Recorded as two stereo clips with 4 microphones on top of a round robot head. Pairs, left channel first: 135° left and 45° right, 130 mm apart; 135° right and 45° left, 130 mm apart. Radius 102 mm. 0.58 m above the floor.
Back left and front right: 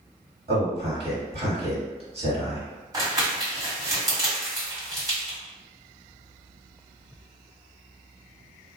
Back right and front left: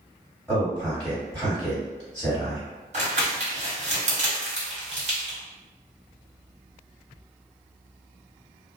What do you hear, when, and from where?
0.5 s a man speaking: 55° right, 1.8 m
2.9 s crumpling: 15° left, 1.9 m